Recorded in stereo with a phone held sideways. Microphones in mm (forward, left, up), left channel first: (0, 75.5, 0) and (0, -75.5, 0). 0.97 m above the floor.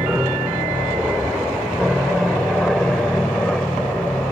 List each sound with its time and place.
0.0 s an aircraft: 10° right (ahead or behind); by 4.3 s 10° left (ahead or behind)